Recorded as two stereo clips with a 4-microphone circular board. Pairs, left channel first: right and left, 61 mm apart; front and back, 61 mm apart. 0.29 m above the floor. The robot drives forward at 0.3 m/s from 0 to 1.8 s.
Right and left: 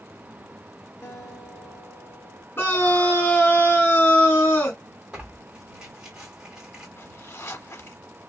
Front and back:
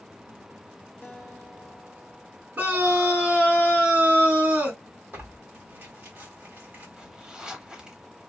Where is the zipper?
110° right, 0.7 m.